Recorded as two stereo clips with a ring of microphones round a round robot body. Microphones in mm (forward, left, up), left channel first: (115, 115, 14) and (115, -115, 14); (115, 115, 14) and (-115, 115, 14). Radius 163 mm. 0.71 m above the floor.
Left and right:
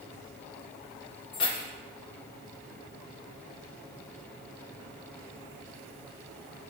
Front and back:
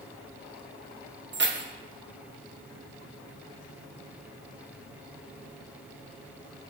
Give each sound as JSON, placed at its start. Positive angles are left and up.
{"t": 1.3, "sound": "keys jangling", "azimuth_deg": 140, "distance_m": 1.0}